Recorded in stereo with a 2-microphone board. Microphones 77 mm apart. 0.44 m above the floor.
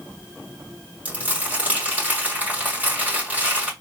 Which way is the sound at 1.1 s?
20° right (ahead or behind).